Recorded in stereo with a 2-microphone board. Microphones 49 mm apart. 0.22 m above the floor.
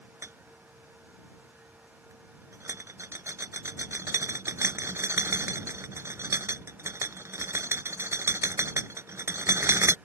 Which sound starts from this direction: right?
A rattle, at 0.2 s.